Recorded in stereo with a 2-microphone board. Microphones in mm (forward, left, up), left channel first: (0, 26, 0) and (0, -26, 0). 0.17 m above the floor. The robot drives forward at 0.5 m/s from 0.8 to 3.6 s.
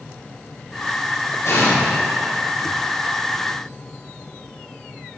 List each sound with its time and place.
1.4 s an explosion: 60° left (ahead or behind), 3.5 m